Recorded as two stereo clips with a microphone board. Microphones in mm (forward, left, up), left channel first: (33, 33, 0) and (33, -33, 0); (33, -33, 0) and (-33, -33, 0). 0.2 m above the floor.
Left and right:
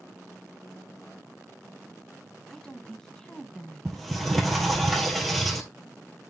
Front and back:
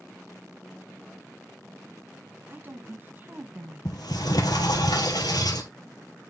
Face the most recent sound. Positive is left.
turn(degrees=5)